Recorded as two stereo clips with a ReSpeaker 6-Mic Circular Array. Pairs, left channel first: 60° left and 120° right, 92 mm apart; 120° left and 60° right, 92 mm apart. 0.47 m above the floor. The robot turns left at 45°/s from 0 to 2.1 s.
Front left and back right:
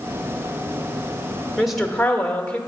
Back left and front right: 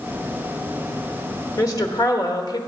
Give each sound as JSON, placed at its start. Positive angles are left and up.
{"t": 1.6, "sound": "a woman speaking", "azimuth_deg": 155, "distance_m": 1.0}